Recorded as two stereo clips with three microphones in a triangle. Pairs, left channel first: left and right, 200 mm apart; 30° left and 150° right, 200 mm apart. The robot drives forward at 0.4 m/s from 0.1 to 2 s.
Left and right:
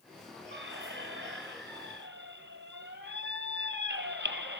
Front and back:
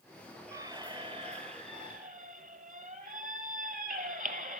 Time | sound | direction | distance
0.5 | a squeak | 80° right | 1.1 m